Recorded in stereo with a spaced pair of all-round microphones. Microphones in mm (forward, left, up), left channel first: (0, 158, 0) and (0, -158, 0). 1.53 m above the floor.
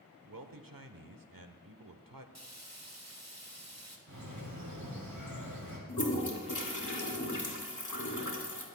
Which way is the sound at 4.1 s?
80° right.